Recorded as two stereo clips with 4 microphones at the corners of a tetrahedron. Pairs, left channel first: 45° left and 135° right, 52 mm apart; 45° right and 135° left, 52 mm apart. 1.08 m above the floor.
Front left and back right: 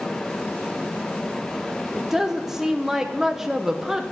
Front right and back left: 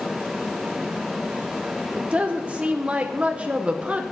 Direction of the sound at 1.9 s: 150° left.